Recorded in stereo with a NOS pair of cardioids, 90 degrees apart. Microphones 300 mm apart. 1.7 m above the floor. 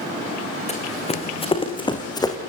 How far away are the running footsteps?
About 6.5 m.